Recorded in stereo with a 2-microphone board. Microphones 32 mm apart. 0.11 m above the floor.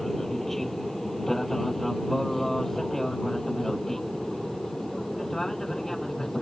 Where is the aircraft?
5° left (ahead or behind); by 6.4 s 10° left (ahead or behind).